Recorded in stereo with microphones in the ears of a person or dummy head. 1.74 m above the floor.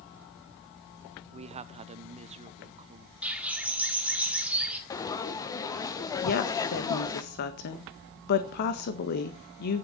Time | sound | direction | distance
1.3 | a man speaking | 30° right (ahead or behind) | 0.7 m
3.2 | a bird | 5° right (ahead or behind) | 1.9 m
4.9 | frying | 20° left (ahead or behind) | 1.2 m
6.2 | a woman speaking | 50° left (ahead or behind) | 1.6 m